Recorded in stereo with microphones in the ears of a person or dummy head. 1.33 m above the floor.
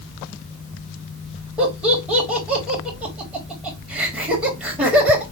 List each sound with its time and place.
1.6 s laughter: 5° right (ahead or behind), 3 m